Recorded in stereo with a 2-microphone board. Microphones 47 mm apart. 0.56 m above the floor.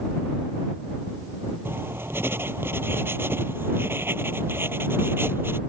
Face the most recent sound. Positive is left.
turn(degrees=-55)  # may be behind; listen again after turning